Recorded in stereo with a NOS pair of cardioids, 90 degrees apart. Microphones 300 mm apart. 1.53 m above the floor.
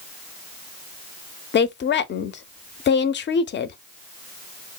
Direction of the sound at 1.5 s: 40° left.